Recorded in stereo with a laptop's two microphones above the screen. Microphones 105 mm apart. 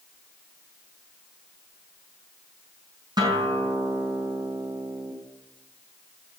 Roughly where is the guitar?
Right.